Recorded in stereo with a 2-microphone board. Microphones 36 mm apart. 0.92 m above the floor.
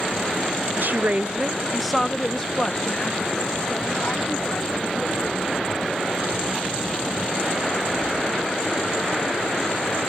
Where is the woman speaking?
55° right (ahead or behind); by 6.1 s 50° left (ahead or behind).